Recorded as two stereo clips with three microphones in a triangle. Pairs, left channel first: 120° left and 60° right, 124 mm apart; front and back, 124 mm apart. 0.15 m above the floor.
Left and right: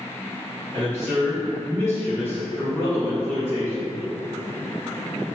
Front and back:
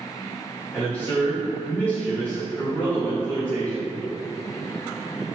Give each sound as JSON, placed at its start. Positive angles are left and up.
{"t": 0.7, "sound": "a man speaking", "azimuth_deg": 70, "distance_m": 1.6}